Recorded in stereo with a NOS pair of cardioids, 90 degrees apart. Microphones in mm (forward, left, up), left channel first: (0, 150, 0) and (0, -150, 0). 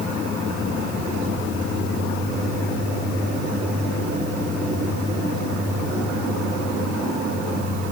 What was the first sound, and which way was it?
Only background noise.